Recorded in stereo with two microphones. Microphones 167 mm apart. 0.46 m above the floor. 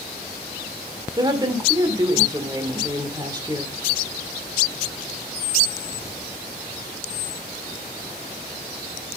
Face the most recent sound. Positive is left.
turn(degrees=-25)  # may be behind; listen again after turning